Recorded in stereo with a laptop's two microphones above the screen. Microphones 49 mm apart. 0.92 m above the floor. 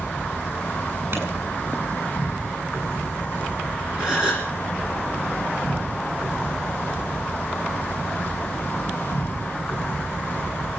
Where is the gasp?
15° right (ahead or behind), 5.5 m.